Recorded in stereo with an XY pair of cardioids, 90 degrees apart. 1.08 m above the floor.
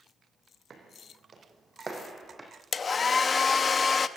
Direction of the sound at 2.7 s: 40° left.